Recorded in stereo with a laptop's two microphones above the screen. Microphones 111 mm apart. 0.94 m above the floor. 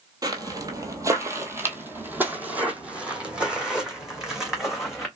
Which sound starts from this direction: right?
Footsteps, at 0.2 s.